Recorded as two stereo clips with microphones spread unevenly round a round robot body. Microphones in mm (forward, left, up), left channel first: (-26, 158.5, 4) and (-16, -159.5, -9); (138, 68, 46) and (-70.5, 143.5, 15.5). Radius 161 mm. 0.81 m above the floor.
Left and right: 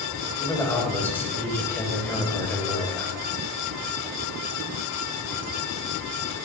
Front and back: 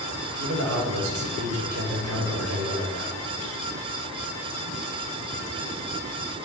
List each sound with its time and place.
0.4 s a man speaking: 175° left, 4 m